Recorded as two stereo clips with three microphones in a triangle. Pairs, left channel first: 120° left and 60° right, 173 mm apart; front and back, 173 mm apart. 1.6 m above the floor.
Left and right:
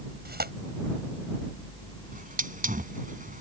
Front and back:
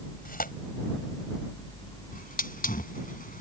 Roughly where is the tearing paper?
Ahead right.